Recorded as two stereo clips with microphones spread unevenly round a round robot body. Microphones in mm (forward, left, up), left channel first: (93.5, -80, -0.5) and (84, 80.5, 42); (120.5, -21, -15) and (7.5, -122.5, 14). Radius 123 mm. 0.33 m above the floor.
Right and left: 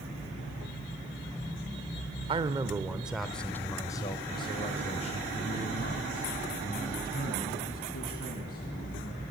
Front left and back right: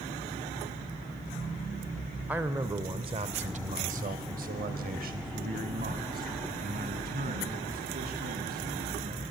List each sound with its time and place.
2.3 s a man speaking: 120° left, 0.9 m; by 9.3 s 115° right, 4 m